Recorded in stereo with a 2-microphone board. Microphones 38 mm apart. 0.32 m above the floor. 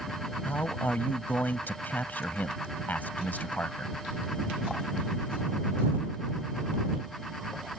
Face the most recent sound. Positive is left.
turn(degrees=50)  # may be behind; listen again after turning